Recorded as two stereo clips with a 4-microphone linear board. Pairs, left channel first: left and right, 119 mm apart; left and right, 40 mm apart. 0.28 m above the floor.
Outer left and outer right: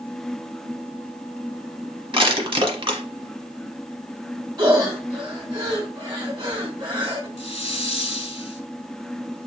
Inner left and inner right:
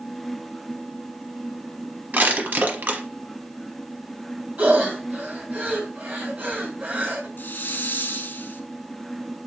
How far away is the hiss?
About 0.7 m.